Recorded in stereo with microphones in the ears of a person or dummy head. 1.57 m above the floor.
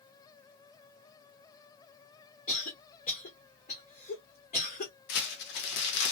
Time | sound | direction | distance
2.5 | a cough | 45° left (ahead or behind) | 0.9 m
5.1 | crumpling | 60° left (ahead or behind) | 0.9 m